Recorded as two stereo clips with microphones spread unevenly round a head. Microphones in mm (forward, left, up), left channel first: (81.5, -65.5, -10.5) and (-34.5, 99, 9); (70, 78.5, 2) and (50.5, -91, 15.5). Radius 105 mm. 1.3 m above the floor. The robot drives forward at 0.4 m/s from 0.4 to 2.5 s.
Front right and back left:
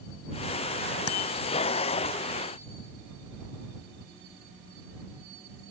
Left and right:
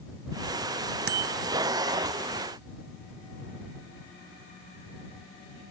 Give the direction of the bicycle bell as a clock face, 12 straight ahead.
3 o'clock.